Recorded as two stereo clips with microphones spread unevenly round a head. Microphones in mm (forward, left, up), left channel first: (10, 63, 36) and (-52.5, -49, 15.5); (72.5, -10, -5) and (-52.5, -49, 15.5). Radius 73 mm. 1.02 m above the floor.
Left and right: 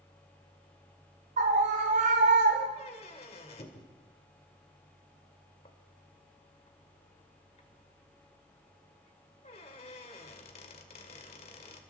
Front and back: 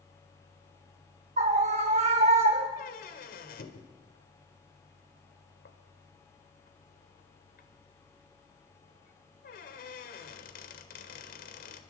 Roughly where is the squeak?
Ahead.